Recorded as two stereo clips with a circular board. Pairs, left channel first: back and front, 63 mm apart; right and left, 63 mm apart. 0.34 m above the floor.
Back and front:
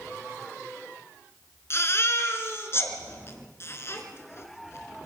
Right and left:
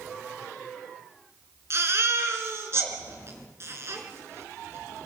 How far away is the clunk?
No clunk in this recording.